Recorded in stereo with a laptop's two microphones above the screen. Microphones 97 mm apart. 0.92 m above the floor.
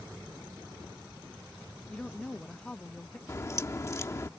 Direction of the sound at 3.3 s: 35° left (ahead or behind).